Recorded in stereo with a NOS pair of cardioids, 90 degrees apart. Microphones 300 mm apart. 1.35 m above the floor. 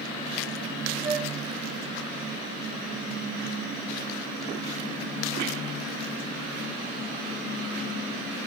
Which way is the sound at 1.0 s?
40° right.